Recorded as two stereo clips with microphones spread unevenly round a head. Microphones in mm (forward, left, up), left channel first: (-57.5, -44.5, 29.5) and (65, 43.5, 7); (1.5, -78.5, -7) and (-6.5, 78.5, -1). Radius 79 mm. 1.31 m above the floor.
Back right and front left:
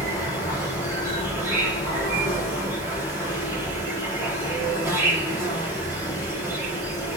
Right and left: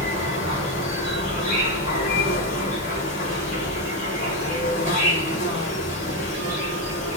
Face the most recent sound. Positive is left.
turn(degrees=-40)